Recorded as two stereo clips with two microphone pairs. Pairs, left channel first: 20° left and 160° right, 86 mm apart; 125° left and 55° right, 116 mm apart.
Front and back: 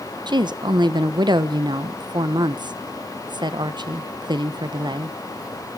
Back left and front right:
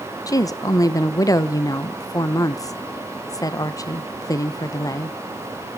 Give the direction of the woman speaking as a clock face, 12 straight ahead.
6 o'clock.